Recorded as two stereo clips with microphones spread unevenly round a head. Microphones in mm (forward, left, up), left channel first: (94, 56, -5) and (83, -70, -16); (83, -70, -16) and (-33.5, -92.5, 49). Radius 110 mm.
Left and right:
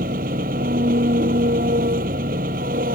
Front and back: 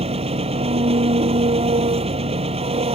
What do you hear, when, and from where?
0.0 s an engine running: 140° right